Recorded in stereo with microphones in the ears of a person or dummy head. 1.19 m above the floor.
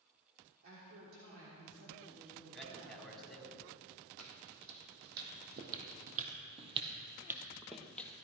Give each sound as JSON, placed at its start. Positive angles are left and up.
{"t": 0.6, "sound": "a woman speaking", "side_deg": -75, "distance_m": 3.5}
{"t": 2.5, "sound": "a man speaking", "side_deg": 0, "distance_m": 3.0}
{"t": 4.2, "sound": "footsteps", "side_deg": -65, "distance_m": 4.0}